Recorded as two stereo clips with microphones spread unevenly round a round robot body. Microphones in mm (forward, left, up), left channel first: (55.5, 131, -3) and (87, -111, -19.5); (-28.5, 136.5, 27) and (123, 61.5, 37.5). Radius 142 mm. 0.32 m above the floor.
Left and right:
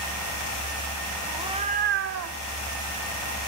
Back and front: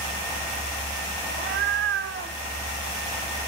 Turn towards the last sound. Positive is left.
turn(degrees=-85)